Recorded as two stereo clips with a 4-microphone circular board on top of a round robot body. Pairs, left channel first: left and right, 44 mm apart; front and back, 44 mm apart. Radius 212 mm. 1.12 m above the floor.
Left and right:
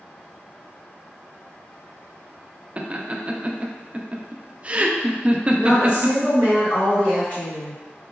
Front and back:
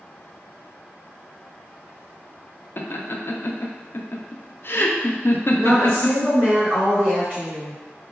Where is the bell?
I don't hear a bell.